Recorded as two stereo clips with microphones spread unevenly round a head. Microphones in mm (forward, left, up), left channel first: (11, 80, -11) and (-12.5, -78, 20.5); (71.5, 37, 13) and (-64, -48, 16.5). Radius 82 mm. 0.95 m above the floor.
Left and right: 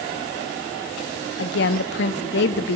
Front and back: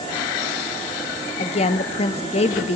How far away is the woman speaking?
About 1.2 m.